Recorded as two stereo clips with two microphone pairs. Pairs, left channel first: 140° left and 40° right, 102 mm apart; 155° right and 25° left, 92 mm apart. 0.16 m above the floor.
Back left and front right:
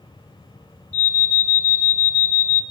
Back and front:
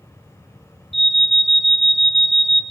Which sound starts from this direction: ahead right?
An alarm, at 0.9 s.